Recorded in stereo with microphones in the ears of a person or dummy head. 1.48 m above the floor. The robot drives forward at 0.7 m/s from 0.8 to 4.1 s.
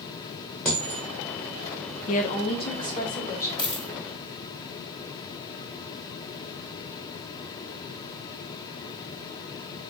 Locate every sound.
0.7 s a dropped coin: centre (ahead or behind), 0.7 m
2.1 s a woman speaking: 45° left (ahead or behind), 0.6 m; by 3.5 s 20° left (ahead or behind), 1.4 m
3.6 s a dropped coin: 35° right (ahead or behind), 1.8 m